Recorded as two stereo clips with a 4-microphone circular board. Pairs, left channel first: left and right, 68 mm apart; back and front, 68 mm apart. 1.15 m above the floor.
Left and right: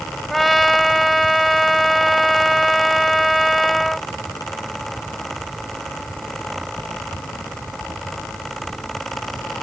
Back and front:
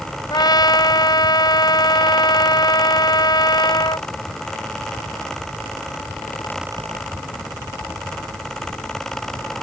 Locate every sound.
0.3 s a trumpet: straight behind